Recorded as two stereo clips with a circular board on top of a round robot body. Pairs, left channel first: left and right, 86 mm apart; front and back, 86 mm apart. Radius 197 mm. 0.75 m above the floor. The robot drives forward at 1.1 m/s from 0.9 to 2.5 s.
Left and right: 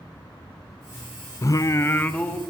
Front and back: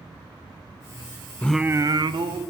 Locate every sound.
1.4 s singing: 60° left, 0.6 m; by 2.4 s 165° left, 1.1 m